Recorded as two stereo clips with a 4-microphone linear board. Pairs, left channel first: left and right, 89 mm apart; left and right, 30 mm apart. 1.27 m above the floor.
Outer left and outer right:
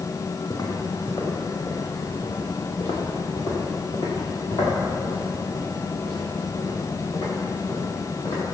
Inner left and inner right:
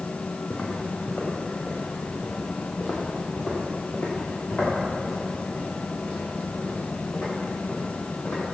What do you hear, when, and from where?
0.5 s footsteps: 50° left (ahead or behind), 3.5 m; by 8.4 s 85° left, 12 m